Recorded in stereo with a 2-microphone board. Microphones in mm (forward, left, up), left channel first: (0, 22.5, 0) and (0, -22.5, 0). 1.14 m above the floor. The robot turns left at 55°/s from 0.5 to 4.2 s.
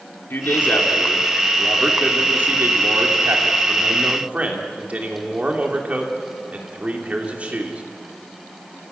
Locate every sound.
0.3 s a man speaking: 60° left, 3 m; by 7.8 s 145° right, 3 m